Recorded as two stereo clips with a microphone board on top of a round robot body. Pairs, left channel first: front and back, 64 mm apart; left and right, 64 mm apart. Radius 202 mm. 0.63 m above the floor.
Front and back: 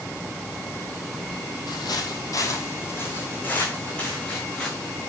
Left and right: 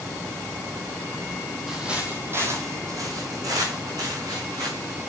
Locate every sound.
1.7 s footsteps: 5° right, 1.7 m; by 5.1 s 80° right, 5 m